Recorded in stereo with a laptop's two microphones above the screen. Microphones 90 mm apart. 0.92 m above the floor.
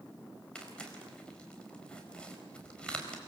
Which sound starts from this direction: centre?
Tearing paper, at 0.6 s.